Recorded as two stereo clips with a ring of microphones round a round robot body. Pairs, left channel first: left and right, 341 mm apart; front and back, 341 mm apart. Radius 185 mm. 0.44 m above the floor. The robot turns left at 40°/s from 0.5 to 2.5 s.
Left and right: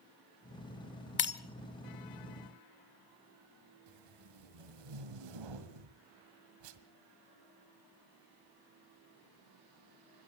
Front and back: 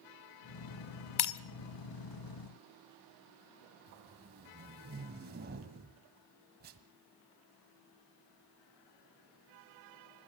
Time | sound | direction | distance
1.2 | breaking glass | 35° left | 1.2 m
3.9 | tape being pulled | 115° right | 1.7 m